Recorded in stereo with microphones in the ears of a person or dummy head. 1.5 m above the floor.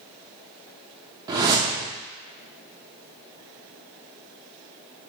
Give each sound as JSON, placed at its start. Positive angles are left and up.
{"t": 1.3, "sound": "a whoosh", "side_deg": -25, "distance_m": 0.6}